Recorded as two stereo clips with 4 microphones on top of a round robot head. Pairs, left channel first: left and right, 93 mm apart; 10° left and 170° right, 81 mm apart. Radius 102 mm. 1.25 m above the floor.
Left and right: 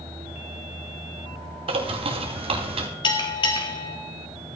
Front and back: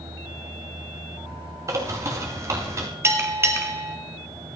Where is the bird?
115° right, 2.5 m.